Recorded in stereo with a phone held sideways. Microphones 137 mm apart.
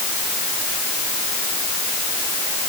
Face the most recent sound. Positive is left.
No sound to turn to.